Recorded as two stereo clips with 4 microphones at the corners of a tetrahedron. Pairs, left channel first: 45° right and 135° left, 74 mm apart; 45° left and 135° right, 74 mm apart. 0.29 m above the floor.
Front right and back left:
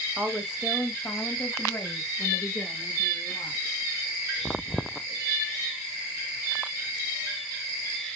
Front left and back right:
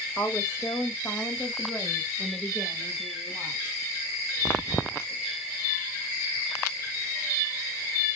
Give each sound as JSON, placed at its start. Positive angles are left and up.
{"t": 0.2, "sound": "a woman speaking", "azimuth_deg": 70, "distance_m": 1.1}